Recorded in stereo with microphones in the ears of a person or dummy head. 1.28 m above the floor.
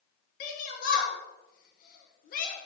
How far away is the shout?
About 1.4 m.